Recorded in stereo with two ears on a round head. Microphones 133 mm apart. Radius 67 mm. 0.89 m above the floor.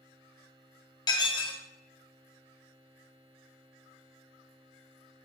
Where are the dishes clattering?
30° left (ahead or behind), 1.0 m.